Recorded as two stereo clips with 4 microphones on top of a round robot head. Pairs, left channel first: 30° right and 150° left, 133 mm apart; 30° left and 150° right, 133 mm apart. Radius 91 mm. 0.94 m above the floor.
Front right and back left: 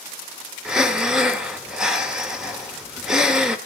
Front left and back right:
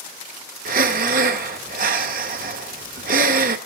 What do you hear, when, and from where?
0.7 s breathing: 125° right, 1.3 m